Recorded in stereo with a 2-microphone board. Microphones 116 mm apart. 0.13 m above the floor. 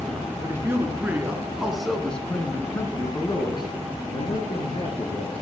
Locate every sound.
0.4 s a man speaking: 25° right (ahead or behind), 1.6 m; by 5.4 s 55° left (ahead or behind), 2 m